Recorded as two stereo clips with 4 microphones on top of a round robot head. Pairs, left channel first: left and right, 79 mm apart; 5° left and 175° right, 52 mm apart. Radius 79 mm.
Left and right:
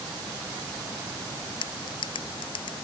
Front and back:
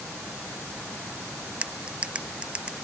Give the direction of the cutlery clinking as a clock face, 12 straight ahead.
8 o'clock.